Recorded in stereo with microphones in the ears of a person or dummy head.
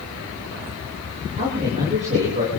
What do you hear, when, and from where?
1.4 s a man speaking: 35° right (ahead or behind), 9.5 m